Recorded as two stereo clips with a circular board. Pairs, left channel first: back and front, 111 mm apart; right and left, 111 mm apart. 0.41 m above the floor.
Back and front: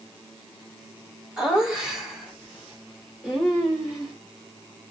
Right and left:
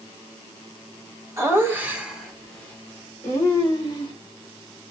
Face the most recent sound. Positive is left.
turn(degrees=-95)